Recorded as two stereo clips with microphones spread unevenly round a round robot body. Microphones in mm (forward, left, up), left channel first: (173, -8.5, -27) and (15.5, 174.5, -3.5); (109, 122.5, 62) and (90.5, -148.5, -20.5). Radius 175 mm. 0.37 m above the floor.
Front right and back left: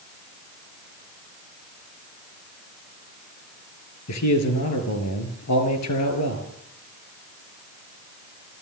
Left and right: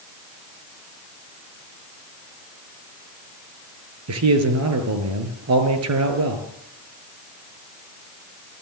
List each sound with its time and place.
4.1 s a man speaking: 75° right, 5 m